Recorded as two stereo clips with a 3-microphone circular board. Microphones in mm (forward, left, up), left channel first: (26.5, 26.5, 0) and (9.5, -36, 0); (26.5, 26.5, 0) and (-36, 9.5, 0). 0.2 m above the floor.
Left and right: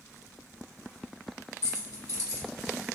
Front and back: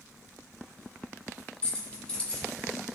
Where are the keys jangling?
85° left, 1.4 m.